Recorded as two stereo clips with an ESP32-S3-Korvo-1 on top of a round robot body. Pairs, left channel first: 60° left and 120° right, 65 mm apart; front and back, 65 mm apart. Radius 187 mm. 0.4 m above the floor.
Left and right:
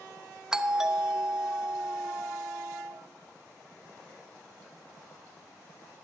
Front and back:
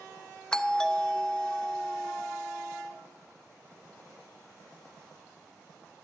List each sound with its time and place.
0.5 s a doorbell: 55° right, 1.2 m